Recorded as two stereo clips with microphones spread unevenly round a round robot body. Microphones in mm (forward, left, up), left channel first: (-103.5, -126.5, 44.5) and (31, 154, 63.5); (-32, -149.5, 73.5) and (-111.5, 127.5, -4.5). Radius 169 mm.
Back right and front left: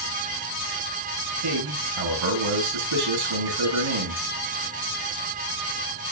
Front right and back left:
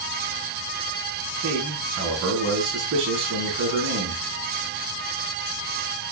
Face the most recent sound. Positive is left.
turn(degrees=55)